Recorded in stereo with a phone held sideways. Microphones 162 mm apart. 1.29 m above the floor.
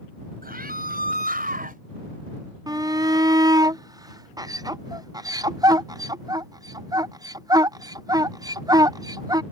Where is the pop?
No pop in this recording.